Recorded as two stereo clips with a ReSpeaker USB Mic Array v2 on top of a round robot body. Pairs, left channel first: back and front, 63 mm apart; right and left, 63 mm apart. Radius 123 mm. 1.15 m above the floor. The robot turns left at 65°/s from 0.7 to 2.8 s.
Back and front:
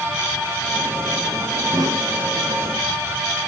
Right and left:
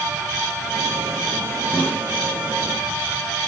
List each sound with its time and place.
1.7 s a snare drum: 10° right, 4 m; by 2.0 s 30° right, 4 m